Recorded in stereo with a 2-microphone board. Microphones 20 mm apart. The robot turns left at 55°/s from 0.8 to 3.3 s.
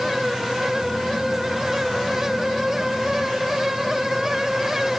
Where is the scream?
I don't hear a scream.